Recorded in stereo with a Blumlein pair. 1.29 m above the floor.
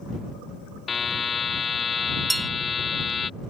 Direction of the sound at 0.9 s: 15° left.